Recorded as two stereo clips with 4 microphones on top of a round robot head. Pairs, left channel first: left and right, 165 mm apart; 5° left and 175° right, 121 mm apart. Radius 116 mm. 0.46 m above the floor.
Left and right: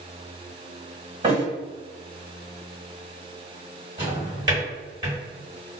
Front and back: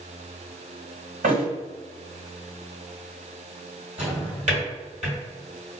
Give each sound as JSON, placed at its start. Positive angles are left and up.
{"t": 1.2, "sound": "a thud", "azimuth_deg": -155, "distance_m": 1.6}
{"t": 4.0, "sound": "a drawer", "azimuth_deg": -155, "distance_m": 1.5}